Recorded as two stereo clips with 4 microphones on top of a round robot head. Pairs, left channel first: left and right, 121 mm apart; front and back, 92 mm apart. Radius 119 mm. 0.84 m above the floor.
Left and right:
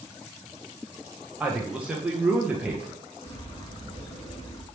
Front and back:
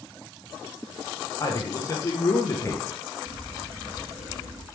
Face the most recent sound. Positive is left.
turn(degrees=135)